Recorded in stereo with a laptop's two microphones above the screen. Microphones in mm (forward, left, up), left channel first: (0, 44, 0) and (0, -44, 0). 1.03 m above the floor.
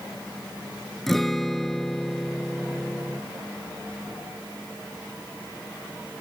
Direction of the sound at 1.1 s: 5° left (ahead or behind).